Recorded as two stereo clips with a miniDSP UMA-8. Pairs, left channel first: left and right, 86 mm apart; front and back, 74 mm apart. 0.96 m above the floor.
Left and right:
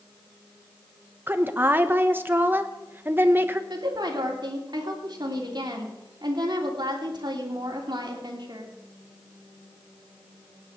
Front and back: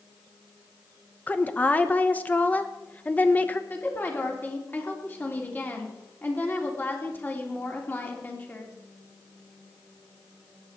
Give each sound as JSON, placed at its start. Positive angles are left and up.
{"t": 1.3, "sound": "a woman speaking", "azimuth_deg": -50, "distance_m": 0.9}
{"t": 3.7, "sound": "a woman speaking", "azimuth_deg": -60, "distance_m": 3.0}